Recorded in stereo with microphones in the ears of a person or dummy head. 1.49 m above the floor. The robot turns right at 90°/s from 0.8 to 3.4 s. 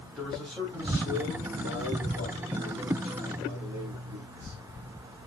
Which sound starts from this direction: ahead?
A man speaking, at 0.2 s.